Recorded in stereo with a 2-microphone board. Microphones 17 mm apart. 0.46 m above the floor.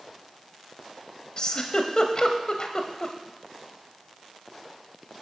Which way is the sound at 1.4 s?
50° left (ahead or behind).